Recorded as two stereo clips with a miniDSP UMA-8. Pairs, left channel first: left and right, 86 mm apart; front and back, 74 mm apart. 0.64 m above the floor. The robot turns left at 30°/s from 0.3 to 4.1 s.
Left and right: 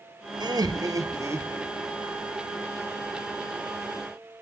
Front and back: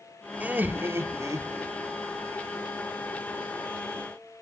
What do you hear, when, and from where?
0.4 s laughter: 115° right, 1.7 m; by 1.7 s 155° right, 1.7 m